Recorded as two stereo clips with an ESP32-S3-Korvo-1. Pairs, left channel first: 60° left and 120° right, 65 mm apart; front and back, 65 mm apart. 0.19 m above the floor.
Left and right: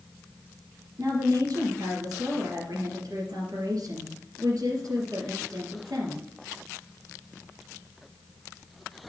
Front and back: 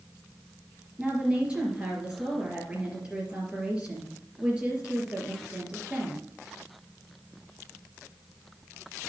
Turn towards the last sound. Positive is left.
turn(degrees=-105)